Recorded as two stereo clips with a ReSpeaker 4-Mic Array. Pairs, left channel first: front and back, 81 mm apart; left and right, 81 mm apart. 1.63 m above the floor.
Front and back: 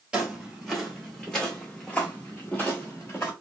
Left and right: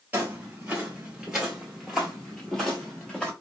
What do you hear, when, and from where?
0.1 s footsteps: 115° right, 1.7 m; by 3.3 s 20° left, 1.9 m